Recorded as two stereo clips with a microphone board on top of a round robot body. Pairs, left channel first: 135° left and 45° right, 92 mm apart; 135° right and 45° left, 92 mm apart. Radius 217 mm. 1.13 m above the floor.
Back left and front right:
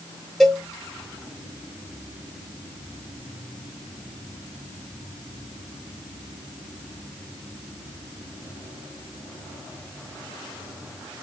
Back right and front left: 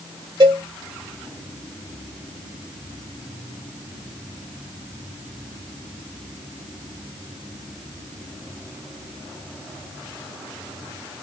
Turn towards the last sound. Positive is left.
turn(degrees=45)